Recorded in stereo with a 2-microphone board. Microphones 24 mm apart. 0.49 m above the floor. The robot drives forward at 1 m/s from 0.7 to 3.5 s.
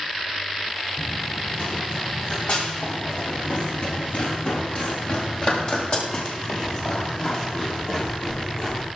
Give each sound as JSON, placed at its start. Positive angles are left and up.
{"t": 1.0, "sound": "running footsteps", "side_deg": 45, "distance_m": 8.5}